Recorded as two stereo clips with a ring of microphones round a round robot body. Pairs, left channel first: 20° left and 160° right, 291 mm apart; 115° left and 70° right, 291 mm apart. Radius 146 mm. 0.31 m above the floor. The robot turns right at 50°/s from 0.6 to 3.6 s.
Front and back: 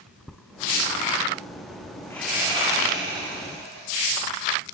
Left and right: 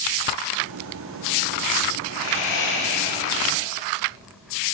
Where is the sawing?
105° left, 7.5 m; by 4.0 s straight behind, 7.5 m.